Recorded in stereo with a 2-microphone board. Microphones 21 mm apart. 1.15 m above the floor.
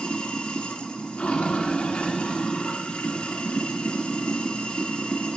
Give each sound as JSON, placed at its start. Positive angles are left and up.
{"t": 0.0, "sound": "running water", "side_deg": 85, "distance_m": 1.8}